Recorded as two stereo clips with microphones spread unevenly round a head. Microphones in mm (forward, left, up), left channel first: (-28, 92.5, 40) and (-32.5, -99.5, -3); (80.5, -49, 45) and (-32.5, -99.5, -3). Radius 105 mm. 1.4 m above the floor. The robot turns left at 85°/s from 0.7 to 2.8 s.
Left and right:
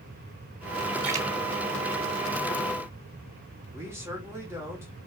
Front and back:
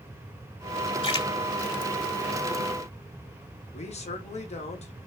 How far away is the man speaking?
About 3 m.